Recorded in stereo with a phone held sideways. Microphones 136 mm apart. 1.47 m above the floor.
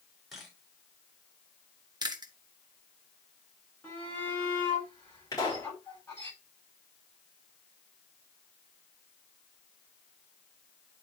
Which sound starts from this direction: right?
Chewing, at 2.0 s.